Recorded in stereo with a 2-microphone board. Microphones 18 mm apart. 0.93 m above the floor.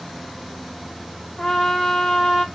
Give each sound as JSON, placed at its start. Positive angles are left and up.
{"t": 1.4, "sound": "a trumpet", "side_deg": 60, "distance_m": 1.9}